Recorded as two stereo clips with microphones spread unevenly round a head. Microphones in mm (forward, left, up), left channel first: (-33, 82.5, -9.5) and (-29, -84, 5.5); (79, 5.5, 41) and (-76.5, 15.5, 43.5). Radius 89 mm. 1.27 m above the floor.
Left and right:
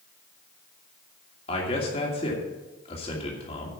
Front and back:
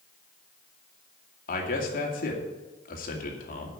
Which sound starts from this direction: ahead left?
A man speaking, at 1.5 s.